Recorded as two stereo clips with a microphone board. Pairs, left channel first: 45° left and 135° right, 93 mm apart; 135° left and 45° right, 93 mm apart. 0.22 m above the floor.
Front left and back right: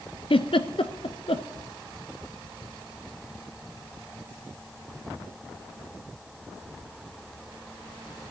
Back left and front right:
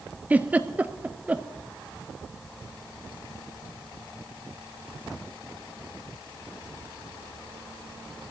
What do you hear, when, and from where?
0.3 s a giggle: 30° left, 0.7 m